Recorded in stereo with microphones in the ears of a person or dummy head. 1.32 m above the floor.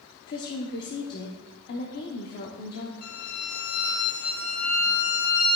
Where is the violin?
50° left (ahead or behind), 1.1 m.